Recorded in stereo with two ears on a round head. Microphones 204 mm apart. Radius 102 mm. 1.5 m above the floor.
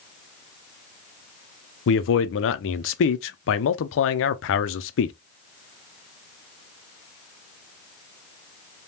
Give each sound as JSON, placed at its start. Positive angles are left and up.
{"t": 1.9, "sound": "a man speaking", "side_deg": 60, "distance_m": 0.5}